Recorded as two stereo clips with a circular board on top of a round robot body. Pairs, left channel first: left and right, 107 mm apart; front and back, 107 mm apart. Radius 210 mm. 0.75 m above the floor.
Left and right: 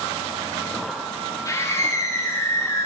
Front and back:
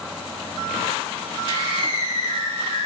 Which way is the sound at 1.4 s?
35° left.